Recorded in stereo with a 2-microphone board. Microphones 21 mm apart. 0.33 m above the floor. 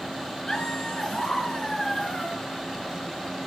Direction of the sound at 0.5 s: 20° left (ahead or behind).